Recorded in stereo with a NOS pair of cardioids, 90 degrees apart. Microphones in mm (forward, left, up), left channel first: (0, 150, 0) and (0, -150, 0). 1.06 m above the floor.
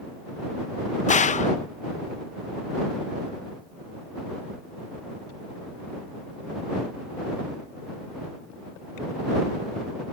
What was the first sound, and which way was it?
A gunshot, 25° left.